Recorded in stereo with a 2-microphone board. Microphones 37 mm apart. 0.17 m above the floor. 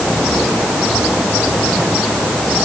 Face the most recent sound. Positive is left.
No sound to turn to.